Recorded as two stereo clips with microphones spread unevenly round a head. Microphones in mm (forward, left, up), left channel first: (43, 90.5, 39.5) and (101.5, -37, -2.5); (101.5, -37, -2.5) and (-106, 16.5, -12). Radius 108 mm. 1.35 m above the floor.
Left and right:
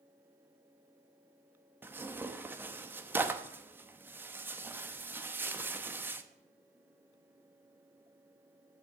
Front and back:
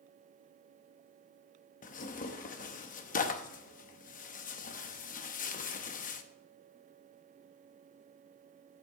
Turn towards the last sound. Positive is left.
turn(degrees=25)